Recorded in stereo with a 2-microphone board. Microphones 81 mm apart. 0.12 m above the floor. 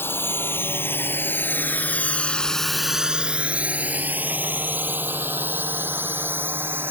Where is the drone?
25° left (ahead or behind); by 6.9 s 25° right (ahead or behind).